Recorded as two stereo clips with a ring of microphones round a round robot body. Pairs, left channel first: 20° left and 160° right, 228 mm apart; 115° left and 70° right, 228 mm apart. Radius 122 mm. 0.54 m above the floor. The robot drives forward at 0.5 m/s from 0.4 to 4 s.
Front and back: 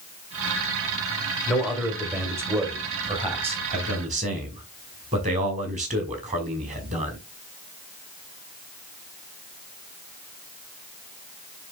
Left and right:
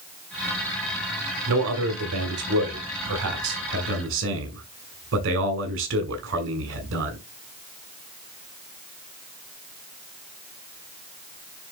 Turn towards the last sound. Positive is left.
turn(degrees=-100)